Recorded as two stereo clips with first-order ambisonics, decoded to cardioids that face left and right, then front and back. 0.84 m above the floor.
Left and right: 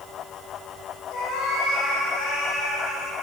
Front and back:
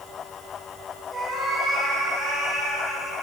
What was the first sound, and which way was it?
A cat meowing, 85° left.